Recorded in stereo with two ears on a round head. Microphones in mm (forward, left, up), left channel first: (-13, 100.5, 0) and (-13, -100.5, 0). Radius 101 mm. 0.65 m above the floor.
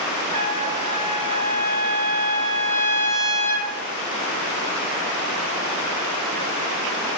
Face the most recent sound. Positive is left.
turn(degrees=-30)  # may be behind; listen again after turning